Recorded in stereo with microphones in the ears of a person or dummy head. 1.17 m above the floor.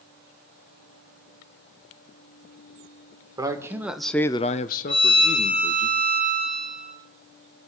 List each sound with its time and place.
3.4 s a man speaking: 20° right (ahead or behind), 1.5 m; by 5.9 s 45° left (ahead or behind), 2.0 m
4.9 s a violin: 5° left (ahead or behind), 6.5 m